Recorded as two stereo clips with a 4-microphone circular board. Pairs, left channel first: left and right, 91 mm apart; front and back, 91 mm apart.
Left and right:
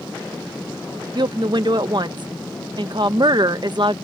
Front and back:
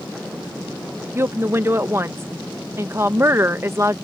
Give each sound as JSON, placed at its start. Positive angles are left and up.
{"t": 1.1, "sound": "a woman speaking", "azimuth_deg": -120}